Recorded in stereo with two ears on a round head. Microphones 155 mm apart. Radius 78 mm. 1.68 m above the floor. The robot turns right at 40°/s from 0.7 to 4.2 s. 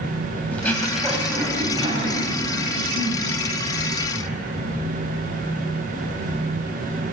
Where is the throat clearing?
10° left (ahead or behind), 5 m; by 4.4 s 50° right (ahead or behind), 5 m.